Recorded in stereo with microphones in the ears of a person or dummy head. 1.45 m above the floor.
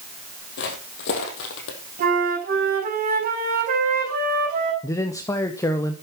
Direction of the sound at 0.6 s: 50° left (ahead or behind).